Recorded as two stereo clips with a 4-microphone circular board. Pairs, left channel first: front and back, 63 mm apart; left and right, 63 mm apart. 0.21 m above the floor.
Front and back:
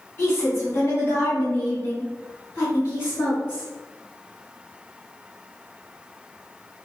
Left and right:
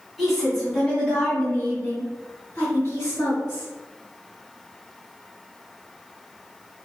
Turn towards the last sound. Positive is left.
turn(degrees=50)